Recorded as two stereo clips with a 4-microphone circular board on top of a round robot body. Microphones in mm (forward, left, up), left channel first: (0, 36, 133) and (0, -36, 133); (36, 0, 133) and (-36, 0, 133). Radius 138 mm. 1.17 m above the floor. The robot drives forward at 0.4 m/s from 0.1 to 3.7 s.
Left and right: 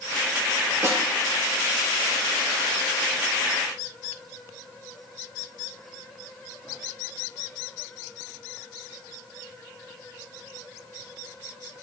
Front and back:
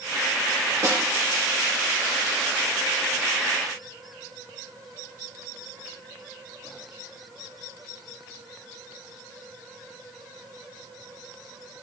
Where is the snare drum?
140° right, 1.7 m.